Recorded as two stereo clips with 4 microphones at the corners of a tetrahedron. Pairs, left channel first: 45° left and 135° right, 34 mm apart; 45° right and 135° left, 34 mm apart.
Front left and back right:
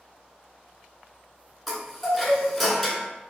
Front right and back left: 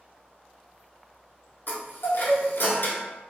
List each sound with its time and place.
1.7 s a chime: 40° right, 0.7 m